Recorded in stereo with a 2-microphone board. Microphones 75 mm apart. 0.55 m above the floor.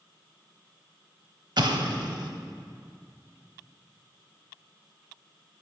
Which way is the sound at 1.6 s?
65° right (ahead or behind).